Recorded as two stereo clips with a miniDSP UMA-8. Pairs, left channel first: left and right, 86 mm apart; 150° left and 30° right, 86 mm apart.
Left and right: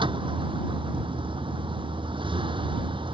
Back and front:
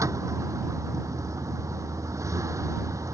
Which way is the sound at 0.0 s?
80° right.